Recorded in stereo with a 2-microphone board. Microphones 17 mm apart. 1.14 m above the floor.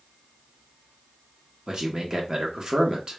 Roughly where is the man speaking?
Right.